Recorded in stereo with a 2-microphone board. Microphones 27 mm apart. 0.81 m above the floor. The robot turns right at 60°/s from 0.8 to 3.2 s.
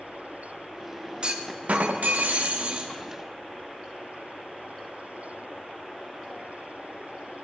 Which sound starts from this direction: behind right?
A clunk, at 1.2 s.